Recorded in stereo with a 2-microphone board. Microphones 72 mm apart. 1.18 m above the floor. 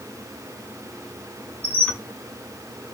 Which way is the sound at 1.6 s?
15° left (ahead or behind).